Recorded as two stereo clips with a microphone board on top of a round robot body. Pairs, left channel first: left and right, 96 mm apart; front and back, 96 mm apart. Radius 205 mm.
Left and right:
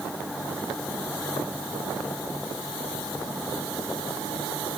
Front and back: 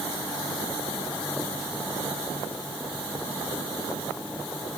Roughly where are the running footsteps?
I don't hear running footsteps.